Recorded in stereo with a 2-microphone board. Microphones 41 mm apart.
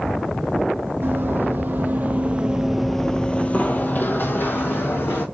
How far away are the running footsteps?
About 1.1 m.